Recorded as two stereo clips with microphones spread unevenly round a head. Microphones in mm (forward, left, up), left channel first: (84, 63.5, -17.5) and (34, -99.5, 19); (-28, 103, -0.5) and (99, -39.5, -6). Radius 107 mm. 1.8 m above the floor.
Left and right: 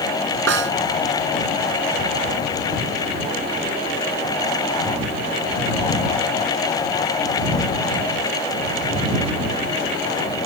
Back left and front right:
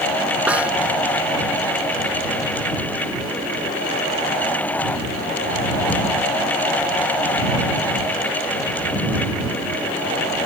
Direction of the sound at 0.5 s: 135° right.